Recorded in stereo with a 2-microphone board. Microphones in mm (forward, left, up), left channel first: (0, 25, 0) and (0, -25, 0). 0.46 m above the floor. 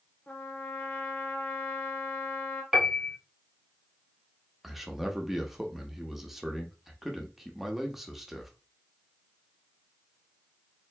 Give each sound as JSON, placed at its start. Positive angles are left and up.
{"t": 0.3, "sound": "a trumpet", "side_deg": 35, "distance_m": 0.9}
{"t": 2.7, "sound": "a piano", "side_deg": -15, "distance_m": 0.9}
{"t": 4.6, "sound": "a man speaking", "side_deg": -5, "distance_m": 0.8}